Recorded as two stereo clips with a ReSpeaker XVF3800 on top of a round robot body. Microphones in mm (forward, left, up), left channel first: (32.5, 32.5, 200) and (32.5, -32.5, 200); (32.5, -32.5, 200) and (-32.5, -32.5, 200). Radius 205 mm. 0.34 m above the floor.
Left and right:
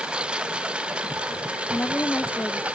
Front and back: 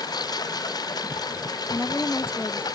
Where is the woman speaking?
40° left.